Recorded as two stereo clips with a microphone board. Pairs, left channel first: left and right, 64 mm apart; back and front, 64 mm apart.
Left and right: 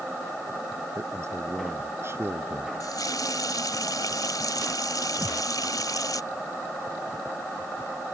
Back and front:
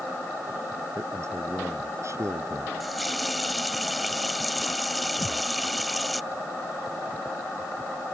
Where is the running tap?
90° left.